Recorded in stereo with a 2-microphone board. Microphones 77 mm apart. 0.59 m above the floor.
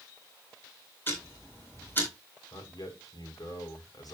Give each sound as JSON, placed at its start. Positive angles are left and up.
{"t": 1.1, "sound": "ticking", "side_deg": 25, "distance_m": 4.0}
{"t": 2.5, "sound": "a man speaking", "side_deg": 55, "distance_m": 3.5}